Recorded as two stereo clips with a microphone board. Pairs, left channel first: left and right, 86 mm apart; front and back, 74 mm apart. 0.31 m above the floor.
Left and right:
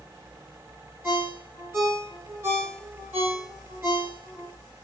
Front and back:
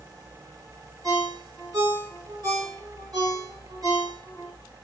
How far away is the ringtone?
About 1.9 m.